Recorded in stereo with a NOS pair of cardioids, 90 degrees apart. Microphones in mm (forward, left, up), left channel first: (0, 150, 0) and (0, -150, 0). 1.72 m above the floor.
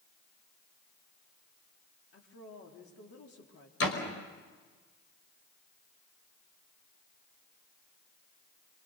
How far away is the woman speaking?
About 5 m.